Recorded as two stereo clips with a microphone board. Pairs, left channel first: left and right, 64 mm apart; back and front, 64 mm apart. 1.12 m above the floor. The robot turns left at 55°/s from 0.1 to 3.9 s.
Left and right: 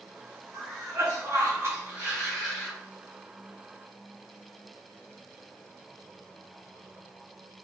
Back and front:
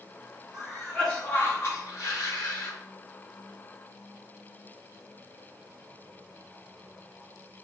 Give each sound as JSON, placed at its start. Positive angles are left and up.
{"t": 0.5, "sound": "a cough", "azimuth_deg": -75, "distance_m": 1.8}